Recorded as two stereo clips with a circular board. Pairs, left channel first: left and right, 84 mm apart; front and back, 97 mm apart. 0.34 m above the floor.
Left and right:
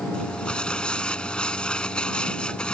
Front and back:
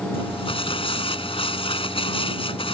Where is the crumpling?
10° left.